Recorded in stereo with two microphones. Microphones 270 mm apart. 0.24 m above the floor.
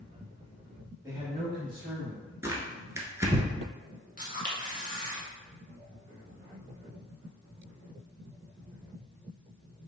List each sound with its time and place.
1.0 s a man speaking: 10° right (ahead or behind), 1.3 m; by 2.3 s 55° right (ahead or behind), 2 m
2.4 s tearing paper: 10° right (ahead or behind), 0.9 m
4.2 s a camera shutter: 30° left (ahead or behind), 1.3 m